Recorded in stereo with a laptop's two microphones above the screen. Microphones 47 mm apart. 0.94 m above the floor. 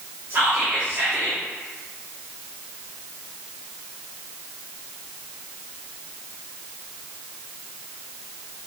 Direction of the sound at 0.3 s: 35° right (ahead or behind).